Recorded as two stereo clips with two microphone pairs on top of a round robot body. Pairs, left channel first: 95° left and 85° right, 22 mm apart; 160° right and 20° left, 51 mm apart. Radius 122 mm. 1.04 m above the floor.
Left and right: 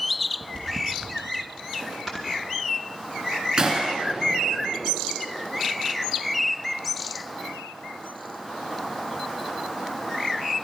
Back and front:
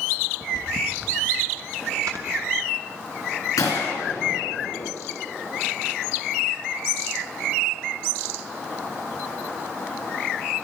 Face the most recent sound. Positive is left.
turn(degrees=-135)